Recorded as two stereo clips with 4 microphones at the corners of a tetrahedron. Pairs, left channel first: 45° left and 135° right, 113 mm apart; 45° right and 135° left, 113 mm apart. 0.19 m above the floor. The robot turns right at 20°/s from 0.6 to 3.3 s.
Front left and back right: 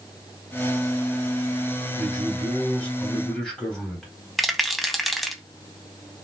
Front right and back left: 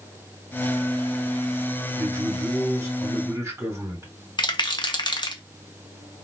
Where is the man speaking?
90° left, 1.7 m; by 4.1 s 120° left, 1.7 m.